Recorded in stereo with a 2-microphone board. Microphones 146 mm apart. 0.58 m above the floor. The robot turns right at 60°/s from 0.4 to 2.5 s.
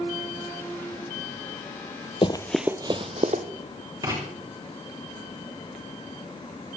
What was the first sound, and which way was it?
Running footsteps, 40° left (ahead or behind).